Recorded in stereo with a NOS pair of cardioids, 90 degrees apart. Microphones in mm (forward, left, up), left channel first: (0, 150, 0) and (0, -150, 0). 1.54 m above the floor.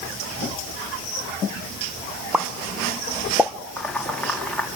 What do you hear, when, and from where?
2.3 s a pop: 5° right, 1.4 m
3.8 s boiling: 5° left, 3.5 m